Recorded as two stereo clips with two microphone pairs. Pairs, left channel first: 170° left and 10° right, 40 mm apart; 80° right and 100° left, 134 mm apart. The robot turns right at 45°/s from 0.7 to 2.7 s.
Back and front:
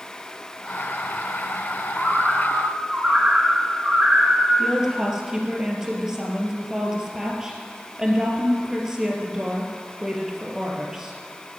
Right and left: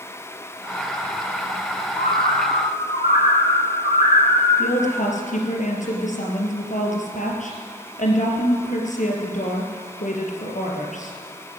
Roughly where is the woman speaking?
Right.